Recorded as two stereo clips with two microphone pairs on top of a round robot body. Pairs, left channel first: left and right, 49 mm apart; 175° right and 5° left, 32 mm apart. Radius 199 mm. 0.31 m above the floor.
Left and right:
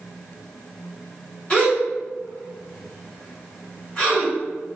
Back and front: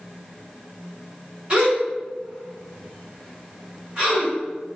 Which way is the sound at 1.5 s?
35° left.